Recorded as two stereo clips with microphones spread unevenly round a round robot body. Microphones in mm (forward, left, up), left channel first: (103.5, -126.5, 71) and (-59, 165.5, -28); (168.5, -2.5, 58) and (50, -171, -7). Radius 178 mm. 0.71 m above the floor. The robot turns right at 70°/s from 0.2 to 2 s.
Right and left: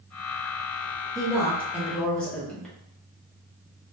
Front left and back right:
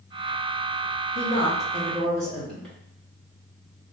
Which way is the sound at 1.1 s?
120° left.